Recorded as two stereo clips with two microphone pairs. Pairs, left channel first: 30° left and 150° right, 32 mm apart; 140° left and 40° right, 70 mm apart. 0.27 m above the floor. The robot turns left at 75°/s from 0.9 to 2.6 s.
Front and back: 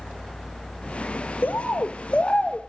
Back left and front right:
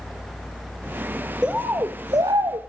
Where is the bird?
35° left, 1.2 m; by 2.6 s 55° right, 1.2 m.